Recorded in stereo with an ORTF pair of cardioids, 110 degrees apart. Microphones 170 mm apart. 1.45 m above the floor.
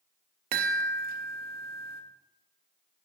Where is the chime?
65° right, 0.7 m.